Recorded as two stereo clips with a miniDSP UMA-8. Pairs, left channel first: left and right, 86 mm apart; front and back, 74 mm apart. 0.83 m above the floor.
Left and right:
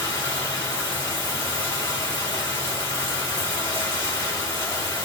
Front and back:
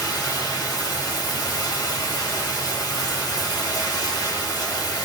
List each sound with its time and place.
0.0 s running water: 35° left, 2.5 m